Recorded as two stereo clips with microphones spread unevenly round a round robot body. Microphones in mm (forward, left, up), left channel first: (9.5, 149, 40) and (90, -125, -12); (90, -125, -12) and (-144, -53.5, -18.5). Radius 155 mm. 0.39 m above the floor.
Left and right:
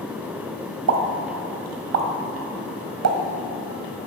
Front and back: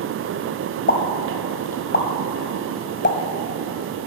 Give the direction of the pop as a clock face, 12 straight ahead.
2 o'clock.